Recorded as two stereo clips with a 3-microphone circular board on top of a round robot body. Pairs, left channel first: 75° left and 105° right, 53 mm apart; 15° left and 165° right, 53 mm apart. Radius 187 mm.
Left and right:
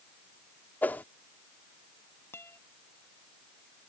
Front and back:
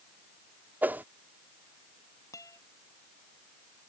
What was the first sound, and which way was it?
A whoosh, 135° left.